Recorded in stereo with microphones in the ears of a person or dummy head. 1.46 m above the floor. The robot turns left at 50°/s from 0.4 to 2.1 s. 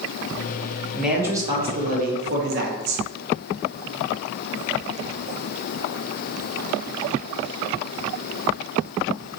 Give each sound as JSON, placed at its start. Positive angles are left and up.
{"t": 0.9, "sound": "a man speaking", "azimuth_deg": 5, "distance_m": 0.8}